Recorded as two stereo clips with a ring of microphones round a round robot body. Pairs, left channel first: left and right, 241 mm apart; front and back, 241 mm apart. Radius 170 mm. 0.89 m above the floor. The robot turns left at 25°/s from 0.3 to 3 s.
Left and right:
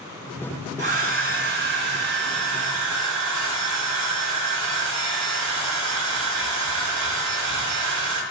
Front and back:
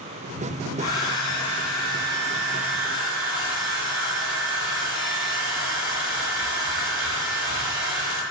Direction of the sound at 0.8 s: 50° right.